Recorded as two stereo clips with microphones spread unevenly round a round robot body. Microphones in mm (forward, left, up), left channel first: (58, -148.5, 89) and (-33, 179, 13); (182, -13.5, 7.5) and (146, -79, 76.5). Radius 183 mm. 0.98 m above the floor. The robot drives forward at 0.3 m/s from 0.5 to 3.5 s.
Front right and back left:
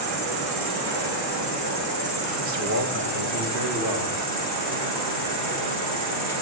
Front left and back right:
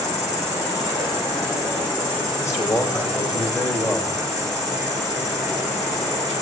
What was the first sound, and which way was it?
An insect, 120° left.